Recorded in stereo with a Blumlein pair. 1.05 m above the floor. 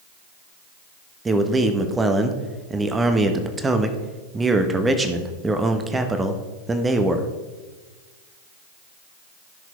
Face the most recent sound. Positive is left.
turn(degrees=-15)